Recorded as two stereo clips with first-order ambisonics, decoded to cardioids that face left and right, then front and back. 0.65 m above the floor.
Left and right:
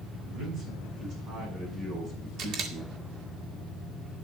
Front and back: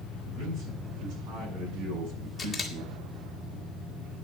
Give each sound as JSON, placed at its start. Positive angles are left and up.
{"t": 0.3, "sound": "a man speaking", "azimuth_deg": -135, "distance_m": 5.5}
{"t": 2.4, "sound": "a camera shutter", "azimuth_deg": -80, "distance_m": 1.5}